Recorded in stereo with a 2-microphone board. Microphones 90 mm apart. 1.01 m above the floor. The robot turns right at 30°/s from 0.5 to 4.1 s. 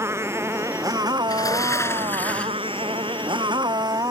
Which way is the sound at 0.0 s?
150° right.